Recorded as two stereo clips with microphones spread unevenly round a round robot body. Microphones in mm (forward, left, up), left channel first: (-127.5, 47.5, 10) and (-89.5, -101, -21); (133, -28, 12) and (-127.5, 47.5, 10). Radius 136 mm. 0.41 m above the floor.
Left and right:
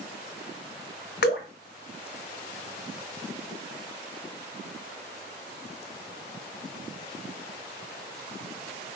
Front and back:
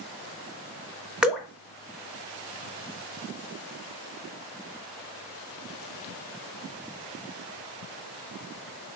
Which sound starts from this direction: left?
Dripping, at 1.2 s.